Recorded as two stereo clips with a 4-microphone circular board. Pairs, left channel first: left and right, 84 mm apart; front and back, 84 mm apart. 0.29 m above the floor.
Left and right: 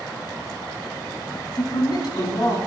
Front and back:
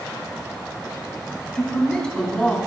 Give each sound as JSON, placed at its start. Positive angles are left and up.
{"t": 1.6, "sound": "a man speaking", "azimuth_deg": 80, "distance_m": 2.5}